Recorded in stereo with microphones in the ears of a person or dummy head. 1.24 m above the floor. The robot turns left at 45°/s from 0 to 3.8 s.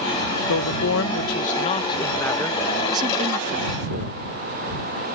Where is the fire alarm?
I don't hear a fire alarm.